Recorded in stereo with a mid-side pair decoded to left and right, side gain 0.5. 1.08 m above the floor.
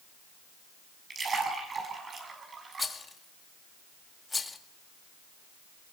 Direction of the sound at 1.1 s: 40° right.